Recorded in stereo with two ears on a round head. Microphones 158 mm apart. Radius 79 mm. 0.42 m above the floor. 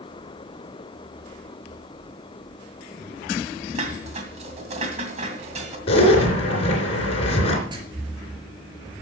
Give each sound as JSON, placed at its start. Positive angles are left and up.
{"t": 3.8, "sound": "dishes clattering", "side_deg": -40, "distance_m": 2.0}
{"t": 5.9, "sound": "a zipper", "side_deg": 35, "distance_m": 3.0}
{"t": 7.7, "sound": "writing", "side_deg": -25, "distance_m": 4.0}